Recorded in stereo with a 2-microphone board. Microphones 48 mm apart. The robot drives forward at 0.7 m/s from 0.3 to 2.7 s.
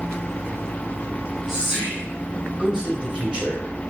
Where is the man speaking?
25° right (ahead or behind), 1.4 m; by 3.6 s 20° right (ahead or behind), 1.4 m.